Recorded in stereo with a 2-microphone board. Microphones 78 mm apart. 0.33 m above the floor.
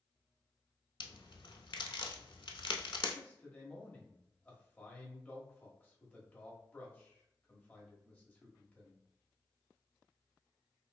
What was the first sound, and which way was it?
A crack, 75° left (ahead or behind).